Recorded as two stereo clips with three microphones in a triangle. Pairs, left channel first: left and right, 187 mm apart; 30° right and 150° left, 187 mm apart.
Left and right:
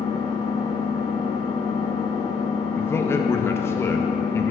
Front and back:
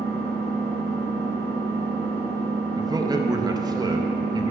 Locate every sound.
0.0 s an engine running: 25° left, 1.9 m
2.8 s a man speaking: 140° left, 0.5 m